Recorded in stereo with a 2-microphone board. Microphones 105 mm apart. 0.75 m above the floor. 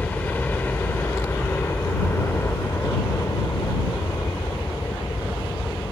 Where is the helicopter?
15° left (ahead or behind); by 5.9 s 40° left (ahead or behind).